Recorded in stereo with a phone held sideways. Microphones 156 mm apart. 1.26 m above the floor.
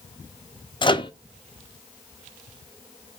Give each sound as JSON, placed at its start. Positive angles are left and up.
{"t": 0.8, "sound": "a microwave", "side_deg": 35, "distance_m": 0.5}